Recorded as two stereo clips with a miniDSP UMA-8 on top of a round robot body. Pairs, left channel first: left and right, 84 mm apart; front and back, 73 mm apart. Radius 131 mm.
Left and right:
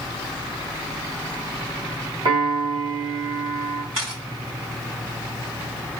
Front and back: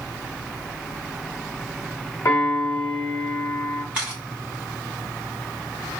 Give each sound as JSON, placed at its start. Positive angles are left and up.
{"t": 2.2, "sound": "a piano", "azimuth_deg": -50, "distance_m": 1.3}
{"t": 3.9, "sound": "a camera shutter", "azimuth_deg": -105, "distance_m": 3.0}